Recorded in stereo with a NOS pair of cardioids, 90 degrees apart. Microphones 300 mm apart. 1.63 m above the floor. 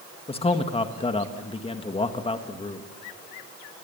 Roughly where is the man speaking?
Ahead.